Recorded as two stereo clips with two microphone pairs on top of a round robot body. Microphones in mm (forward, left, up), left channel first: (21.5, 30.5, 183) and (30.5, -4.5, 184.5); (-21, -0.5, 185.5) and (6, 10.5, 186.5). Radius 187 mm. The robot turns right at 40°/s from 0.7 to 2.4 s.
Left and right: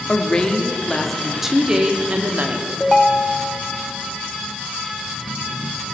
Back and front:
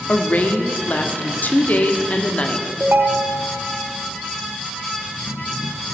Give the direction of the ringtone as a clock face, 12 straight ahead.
11 o'clock.